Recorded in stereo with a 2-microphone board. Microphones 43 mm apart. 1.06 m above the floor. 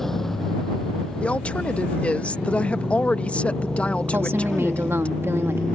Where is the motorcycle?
10° left (ahead or behind); by 5.8 s 15° left (ahead or behind).